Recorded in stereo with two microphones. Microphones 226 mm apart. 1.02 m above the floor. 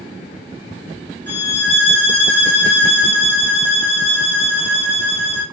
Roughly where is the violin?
Right.